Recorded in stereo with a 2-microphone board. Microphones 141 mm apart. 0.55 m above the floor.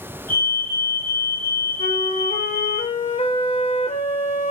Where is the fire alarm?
20° left (ahead or behind), 6 m.